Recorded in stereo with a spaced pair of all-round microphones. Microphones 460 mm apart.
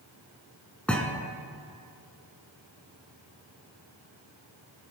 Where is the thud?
Centre (ahead or behind), 1.4 m.